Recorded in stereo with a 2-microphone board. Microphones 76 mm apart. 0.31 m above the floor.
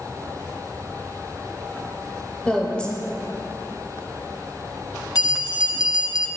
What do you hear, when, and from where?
2.5 s a woman speaking: 15° left (ahead or behind), 0.9 m
5.2 s a bell: 60° left (ahead or behind), 0.6 m